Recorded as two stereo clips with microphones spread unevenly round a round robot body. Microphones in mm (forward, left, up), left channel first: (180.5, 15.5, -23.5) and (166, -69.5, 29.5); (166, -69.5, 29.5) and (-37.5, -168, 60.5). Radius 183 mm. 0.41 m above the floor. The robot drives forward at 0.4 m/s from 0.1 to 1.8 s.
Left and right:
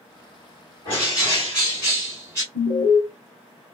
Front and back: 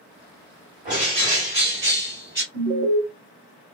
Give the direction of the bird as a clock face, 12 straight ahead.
7 o'clock.